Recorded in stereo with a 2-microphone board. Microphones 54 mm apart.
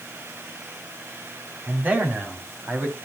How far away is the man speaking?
About 3 m.